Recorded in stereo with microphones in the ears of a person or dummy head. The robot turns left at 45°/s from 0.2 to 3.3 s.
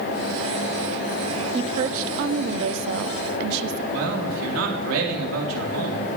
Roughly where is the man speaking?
Right.